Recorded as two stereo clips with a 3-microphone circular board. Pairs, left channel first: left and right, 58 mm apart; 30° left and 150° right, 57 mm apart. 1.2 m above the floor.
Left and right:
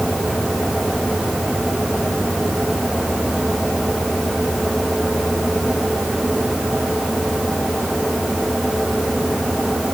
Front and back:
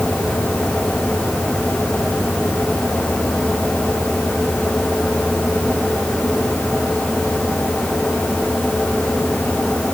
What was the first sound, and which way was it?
Only background noise.